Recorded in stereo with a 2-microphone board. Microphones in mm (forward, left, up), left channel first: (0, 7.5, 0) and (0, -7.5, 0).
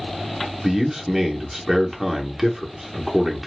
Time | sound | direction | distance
0.6 | a man speaking | 20° right (ahead or behind) | 0.8 m